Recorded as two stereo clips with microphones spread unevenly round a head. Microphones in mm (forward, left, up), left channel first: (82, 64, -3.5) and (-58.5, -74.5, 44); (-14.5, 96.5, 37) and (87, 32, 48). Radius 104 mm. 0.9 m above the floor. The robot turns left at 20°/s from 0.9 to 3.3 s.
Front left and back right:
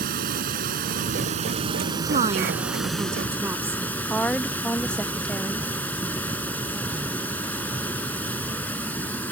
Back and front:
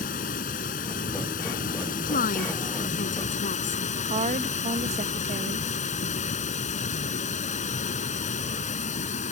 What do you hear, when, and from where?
0.0 s running water: 175° left; by 9.3 s 130° left
2.0 s a woman speaking: 170° left; by 3.8 s 145° left
4.1 s a woman speaking: 30° right